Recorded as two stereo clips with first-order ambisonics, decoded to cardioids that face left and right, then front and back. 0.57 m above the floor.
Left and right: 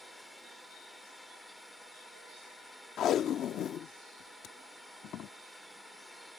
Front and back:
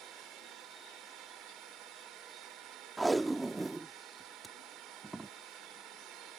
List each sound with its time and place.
0.0 s a drone: 175° left
3.0 s tape being pulled: 105° left